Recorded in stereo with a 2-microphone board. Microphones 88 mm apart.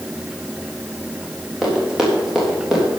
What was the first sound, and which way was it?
Running footsteps, 5° right (ahead or behind).